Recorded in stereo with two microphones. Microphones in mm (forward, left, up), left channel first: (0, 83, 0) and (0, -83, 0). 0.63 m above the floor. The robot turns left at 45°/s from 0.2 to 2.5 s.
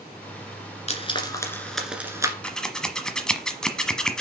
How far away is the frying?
About 1.8 m.